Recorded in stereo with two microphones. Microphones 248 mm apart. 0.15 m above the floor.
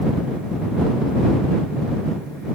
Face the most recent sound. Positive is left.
No sound to turn to.